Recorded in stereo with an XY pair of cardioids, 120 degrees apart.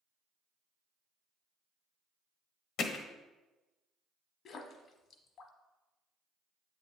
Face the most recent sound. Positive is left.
turn(degrees=55)